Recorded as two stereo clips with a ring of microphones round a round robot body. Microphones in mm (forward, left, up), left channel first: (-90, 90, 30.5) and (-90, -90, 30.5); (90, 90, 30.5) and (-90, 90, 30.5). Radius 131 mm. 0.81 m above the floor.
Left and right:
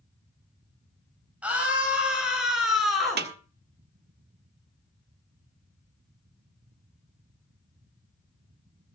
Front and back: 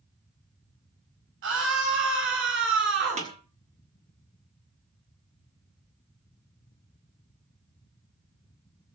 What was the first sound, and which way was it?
A scream, 170° right.